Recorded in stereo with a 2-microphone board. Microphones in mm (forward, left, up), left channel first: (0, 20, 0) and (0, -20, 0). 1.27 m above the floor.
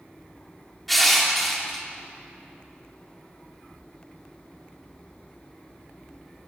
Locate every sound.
0.9 s crushing: 5° left (ahead or behind), 3 m